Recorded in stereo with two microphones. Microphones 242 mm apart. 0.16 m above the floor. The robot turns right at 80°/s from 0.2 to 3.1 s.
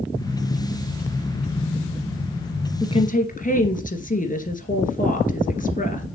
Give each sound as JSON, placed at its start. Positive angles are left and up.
{"t": 2.8, "sound": "a woman speaking", "side_deg": 15, "distance_m": 2.0}